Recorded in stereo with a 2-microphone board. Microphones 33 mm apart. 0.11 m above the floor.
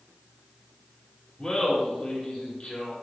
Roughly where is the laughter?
Left.